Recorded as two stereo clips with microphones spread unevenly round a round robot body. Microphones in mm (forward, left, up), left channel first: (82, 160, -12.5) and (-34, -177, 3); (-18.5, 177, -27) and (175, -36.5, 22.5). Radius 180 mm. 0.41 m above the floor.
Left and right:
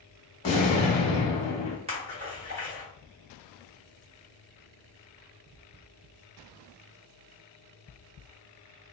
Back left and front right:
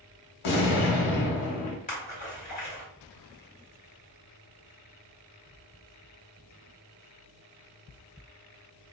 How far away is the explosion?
About 0.6 m.